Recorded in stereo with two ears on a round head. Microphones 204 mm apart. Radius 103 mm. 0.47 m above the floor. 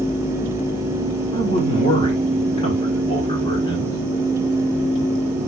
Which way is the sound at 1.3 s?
25° left (ahead or behind).